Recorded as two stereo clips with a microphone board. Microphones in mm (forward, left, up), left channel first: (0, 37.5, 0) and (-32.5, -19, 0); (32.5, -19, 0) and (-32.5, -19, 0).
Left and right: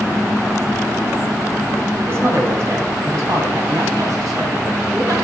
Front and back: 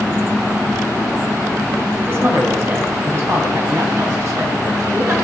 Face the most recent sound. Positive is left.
turn(degrees=-145)